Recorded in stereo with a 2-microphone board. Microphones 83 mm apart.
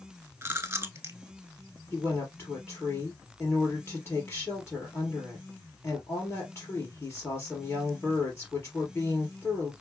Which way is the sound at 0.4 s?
30° right (ahead or behind).